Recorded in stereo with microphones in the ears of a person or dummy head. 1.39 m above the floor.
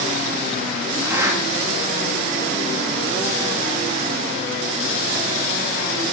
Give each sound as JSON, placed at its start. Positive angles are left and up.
{"t": 1.0, "sound": "a zipper", "side_deg": -15, "distance_m": 1.4}